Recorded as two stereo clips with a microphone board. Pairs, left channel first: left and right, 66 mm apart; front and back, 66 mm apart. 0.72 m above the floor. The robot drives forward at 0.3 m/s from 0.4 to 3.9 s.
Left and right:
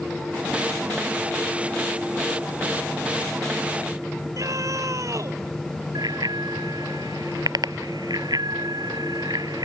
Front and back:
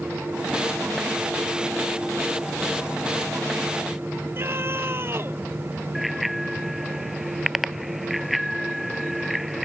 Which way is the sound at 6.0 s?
95° right.